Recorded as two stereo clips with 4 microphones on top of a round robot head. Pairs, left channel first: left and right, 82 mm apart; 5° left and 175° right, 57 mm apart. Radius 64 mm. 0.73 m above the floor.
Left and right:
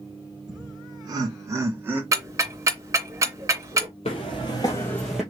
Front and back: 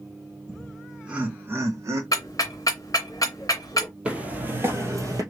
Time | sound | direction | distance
0.5 | laughter | 70° right | 1.5 m
2.1 | ticking | 50° right | 0.6 m
4.0 | footsteps | 120° left | 1.4 m